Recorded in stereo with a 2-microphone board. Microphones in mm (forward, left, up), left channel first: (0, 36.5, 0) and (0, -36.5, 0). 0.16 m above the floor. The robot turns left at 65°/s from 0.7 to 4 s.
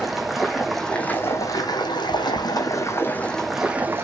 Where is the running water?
Straight behind, 1.5 m; by 4.0 s 35° right, 1.5 m.